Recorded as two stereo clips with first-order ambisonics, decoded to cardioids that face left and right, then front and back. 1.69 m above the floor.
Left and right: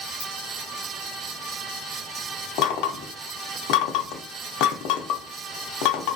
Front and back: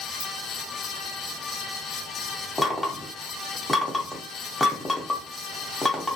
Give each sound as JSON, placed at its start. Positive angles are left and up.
{"t": 0.2, "sound": "a ringtone", "azimuth_deg": 110, "distance_m": 1.3}
{"t": 2.6, "sound": "knocking", "azimuth_deg": 80, "distance_m": 0.5}